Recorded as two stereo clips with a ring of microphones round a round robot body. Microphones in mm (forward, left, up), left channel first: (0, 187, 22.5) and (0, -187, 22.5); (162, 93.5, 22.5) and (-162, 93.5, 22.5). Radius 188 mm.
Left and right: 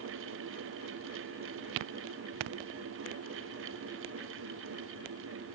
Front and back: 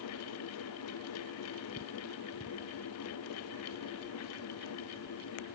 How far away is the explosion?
I don't hear an explosion.